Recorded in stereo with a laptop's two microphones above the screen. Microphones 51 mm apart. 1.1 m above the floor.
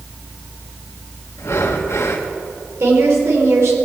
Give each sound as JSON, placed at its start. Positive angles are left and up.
{"t": 1.4, "sound": "breathing", "side_deg": 75, "distance_m": 1.2}
{"t": 2.8, "sound": "a woman speaking", "side_deg": -65, "distance_m": 3.5}